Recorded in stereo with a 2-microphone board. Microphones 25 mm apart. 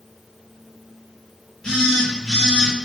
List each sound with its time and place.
1.6 s a phone buzzing: 20° left (ahead or behind), 1.9 m